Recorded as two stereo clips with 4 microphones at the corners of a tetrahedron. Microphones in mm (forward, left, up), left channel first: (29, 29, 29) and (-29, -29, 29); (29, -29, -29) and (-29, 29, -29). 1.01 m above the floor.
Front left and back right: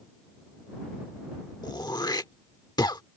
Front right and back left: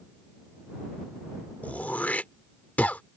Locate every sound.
1.6 s throat clearing: 25° left